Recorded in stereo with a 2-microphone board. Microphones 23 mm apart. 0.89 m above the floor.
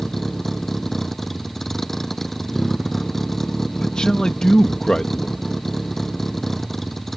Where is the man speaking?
35° left (ahead or behind).